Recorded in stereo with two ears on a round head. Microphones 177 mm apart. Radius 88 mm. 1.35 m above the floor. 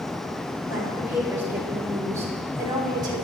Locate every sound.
0.7 s a woman speaking: 10° right (ahead or behind), 7.5 m; by 3.2 s 20° right (ahead or behind), 4 m